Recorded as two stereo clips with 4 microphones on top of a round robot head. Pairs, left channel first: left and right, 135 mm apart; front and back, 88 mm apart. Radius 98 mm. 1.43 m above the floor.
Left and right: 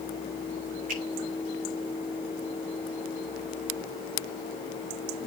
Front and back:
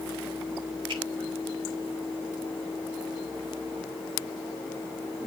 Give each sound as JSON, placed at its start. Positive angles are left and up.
{"t": 0.9, "sound": "a finger snap", "azimuth_deg": -125, "distance_m": 7.0}